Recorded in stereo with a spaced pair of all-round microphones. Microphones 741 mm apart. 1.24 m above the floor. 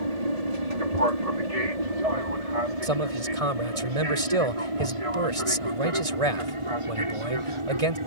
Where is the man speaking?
50° right (ahead or behind).